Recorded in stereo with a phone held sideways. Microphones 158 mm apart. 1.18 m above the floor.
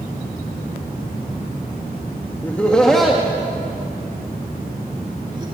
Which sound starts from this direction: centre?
Laughter, at 2.4 s.